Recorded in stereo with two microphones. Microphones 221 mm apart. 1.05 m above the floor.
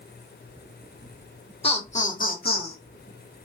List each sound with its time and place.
1.6 s laughter: 25° left (ahead or behind), 1.0 m; by 2.8 s 45° left (ahead or behind), 0.9 m